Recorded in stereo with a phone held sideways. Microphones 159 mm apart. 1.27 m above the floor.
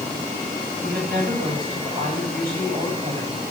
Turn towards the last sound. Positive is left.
turn(degrees=-70)  # may be behind; listen again after turning